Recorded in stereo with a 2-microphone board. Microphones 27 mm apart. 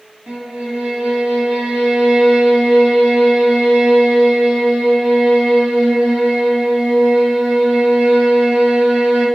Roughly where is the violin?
Right.